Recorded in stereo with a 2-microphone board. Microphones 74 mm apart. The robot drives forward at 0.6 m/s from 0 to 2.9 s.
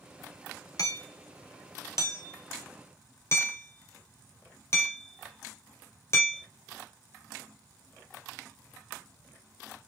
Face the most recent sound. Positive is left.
turn(degrees=35)  # may be behind; listen again after turning